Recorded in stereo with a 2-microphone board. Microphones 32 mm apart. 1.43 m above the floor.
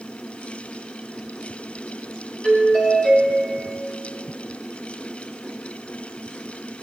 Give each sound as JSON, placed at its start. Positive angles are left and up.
{"t": 2.4, "sound": "a doorbell", "side_deg": 40, "distance_m": 4.0}